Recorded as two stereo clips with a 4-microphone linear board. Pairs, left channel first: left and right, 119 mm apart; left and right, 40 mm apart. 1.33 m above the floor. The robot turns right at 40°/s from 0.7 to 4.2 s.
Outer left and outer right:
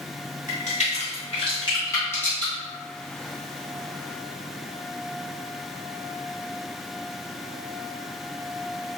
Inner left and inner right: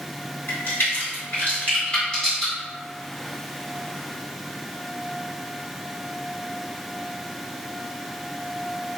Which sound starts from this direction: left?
A crack, at 0.5 s.